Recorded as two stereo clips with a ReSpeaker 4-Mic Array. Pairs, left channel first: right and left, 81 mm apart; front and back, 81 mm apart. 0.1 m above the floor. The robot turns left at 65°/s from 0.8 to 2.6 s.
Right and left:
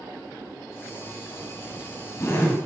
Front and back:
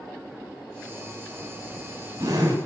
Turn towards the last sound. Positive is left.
turn(degrees=-170)